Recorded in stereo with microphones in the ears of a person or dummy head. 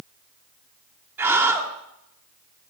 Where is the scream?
5° right (ahead or behind), 0.6 m.